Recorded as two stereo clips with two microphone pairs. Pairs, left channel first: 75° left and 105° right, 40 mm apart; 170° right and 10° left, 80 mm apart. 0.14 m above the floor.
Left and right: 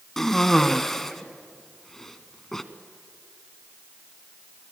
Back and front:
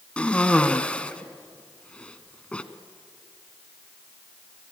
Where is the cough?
140° left, 1.2 m.